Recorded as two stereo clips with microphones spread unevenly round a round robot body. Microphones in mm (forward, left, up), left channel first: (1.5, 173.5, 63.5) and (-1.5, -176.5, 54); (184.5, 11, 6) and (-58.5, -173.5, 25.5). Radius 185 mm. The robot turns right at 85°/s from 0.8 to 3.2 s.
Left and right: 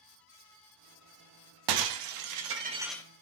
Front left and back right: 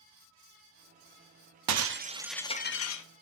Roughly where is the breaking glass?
Right.